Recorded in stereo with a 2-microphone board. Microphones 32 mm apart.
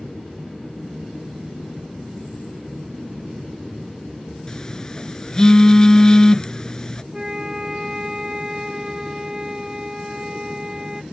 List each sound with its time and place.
4.5 s a phone buzzing: 25° left (ahead or behind)
7.1 s a flute: 20° right (ahead or behind)